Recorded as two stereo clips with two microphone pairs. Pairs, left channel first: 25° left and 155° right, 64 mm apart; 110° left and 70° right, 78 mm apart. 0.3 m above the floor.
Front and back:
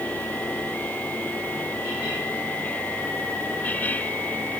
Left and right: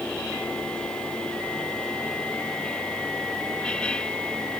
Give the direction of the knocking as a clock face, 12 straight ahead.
No knocking in this recording.